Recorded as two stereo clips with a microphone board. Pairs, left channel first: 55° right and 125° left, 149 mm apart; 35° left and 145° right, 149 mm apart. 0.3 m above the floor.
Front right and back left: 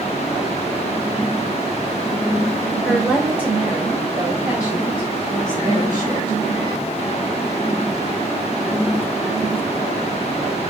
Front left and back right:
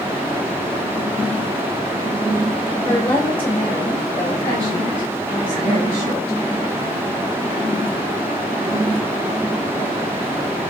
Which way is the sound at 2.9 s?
25° left.